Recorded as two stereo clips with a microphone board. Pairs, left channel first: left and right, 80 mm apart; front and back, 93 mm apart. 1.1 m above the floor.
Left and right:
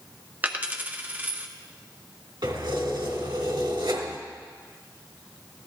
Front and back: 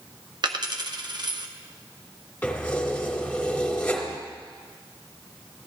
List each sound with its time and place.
0.4 s a dropped coin: 155° right, 0.7 m
2.4 s keys jangling: 75° right, 2 m